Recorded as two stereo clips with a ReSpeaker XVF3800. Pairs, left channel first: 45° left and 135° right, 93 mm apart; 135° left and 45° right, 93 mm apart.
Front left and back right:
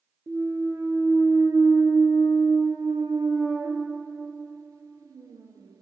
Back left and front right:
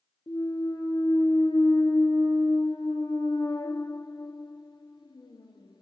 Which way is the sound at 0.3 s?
170° left.